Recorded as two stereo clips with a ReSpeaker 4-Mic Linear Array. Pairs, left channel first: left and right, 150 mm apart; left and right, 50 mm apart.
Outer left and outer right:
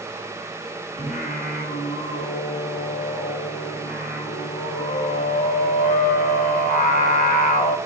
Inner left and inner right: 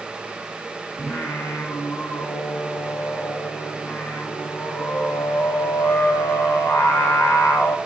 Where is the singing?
75° left (ahead or behind), 0.5 m.